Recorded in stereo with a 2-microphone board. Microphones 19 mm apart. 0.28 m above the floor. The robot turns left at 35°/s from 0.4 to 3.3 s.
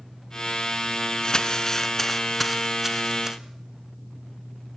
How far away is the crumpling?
About 2 m.